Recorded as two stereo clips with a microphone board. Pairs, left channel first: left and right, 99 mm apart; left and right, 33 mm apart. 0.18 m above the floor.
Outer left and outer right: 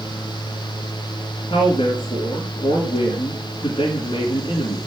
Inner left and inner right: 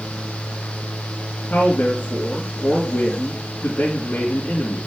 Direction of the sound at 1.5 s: 55° left (ahead or behind).